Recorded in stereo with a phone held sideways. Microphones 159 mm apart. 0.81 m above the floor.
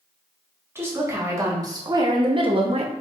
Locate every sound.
0.8 s a woman speaking: 15° right (ahead or behind), 1.6 m; by 2.9 s 40° right (ahead or behind), 0.7 m